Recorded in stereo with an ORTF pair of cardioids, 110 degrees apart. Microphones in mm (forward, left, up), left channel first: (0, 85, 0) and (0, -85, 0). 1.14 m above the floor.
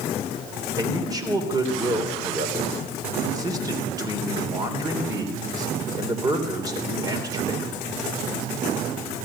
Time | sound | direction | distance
0.8 | a man speaking | 20° right | 3.5 m